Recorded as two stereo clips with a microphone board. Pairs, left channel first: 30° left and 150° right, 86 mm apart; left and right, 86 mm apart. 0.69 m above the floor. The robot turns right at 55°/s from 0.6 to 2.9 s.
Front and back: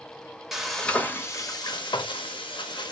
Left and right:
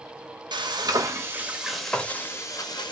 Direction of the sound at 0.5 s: 65° right.